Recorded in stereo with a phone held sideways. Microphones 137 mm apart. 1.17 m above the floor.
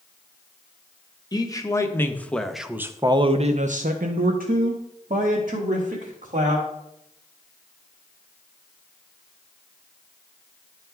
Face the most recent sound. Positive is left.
turn(degrees=-70)  # may be behind; listen again after turning